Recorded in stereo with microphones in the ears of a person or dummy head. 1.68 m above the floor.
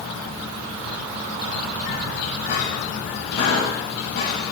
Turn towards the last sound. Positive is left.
turn(degrees=65)  # may be behind; listen again after turning